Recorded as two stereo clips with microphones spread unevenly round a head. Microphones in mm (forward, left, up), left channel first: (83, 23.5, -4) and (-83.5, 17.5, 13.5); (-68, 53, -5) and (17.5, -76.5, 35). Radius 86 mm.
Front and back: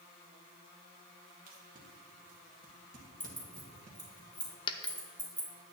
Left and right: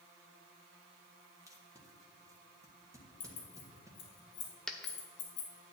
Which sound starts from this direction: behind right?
Tape being pulled, at 1.5 s.